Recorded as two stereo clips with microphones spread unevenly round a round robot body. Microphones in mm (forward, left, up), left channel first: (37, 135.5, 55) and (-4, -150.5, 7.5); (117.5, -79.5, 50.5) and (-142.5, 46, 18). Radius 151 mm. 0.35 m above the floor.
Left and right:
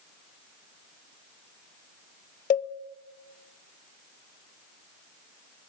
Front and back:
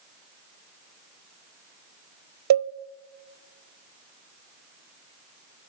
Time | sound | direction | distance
2.5 | a cowbell | 150° left | 0.9 m